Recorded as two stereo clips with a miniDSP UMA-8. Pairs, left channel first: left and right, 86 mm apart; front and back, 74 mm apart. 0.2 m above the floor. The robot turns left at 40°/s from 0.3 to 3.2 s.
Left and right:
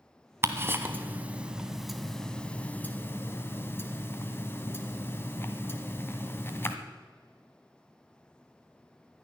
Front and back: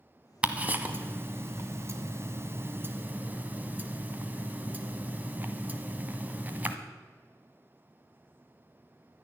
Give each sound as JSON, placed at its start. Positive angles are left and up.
{"t": 0.4, "sound": "ticking", "azimuth_deg": -115, "distance_m": 1.3}